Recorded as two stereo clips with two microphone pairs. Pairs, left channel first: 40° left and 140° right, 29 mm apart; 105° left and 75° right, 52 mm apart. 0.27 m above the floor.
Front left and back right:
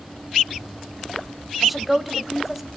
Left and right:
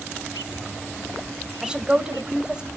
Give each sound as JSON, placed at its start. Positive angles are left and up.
{"t": 1.6, "sound": "a woman speaking", "azimuth_deg": -60, "distance_m": 1.5}